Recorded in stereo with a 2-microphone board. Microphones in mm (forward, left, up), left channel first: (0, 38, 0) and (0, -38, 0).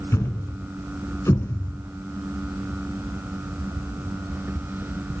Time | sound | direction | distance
0.1 | a thud | 35° left (ahead or behind) | 1.5 m